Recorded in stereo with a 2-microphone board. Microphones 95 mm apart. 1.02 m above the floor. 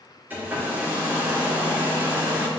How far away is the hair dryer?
About 2.5 m.